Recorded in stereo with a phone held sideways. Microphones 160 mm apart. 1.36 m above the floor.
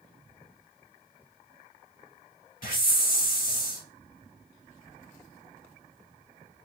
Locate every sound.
2.6 s a hiss: 60° left (ahead or behind), 1.4 m